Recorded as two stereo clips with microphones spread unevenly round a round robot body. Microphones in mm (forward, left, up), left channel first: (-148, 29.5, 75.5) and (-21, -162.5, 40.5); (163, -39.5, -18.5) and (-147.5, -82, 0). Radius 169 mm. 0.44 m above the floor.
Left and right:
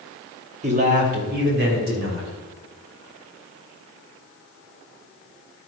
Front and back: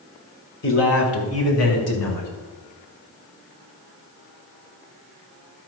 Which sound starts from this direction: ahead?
A man speaking, at 0.6 s.